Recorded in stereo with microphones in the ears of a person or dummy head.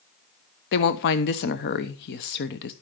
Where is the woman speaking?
55° left (ahead or behind), 0.9 m.